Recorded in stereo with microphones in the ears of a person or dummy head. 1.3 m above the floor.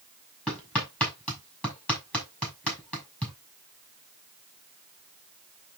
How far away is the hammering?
About 6 m.